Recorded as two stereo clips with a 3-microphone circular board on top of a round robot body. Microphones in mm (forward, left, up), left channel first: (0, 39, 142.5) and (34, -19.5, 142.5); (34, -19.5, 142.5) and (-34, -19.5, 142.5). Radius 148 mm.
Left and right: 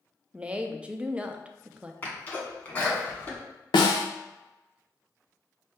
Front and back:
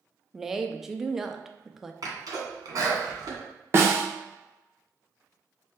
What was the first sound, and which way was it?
A woman speaking, 105° right.